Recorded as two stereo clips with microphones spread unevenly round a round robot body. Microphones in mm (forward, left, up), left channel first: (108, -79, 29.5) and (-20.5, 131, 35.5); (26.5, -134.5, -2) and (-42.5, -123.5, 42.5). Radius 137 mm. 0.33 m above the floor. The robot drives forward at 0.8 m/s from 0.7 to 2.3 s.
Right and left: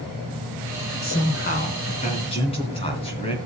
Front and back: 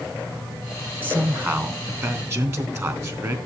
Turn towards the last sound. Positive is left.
turn(degrees=-130)